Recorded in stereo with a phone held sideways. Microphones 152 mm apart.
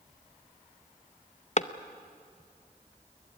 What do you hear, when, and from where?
1.6 s a clap: 50° left (ahead or behind), 0.7 m